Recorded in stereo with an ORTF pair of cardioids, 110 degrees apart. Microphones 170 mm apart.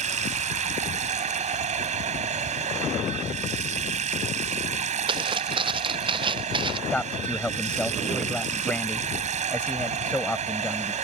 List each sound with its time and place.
0.0 s running water: 45° right
5.1 s footsteps: 30° right
6.9 s a man speaking: 5° left